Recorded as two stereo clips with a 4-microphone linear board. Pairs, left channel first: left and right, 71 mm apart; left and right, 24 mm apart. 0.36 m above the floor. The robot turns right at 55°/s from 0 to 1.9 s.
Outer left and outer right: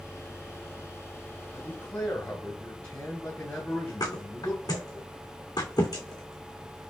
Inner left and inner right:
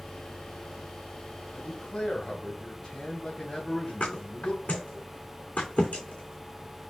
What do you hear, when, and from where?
1.5 s a man speaking: 40° left (ahead or behind), 2 m; by 5.0 s 25° left (ahead or behind), 2 m
4.0 s a thud: 70° left (ahead or behind), 3 m